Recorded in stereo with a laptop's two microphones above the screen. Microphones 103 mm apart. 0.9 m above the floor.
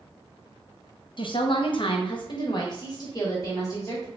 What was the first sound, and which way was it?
A woman speaking, 50° left (ahead or behind).